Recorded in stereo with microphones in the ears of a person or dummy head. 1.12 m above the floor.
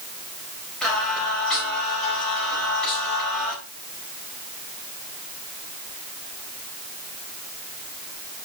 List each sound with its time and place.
0.8 s singing: centre (ahead or behind), 4 m